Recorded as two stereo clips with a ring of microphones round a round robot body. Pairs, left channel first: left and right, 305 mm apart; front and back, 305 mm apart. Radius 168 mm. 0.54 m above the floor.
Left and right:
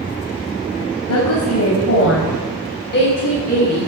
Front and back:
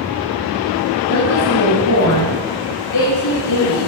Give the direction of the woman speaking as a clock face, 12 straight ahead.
10 o'clock.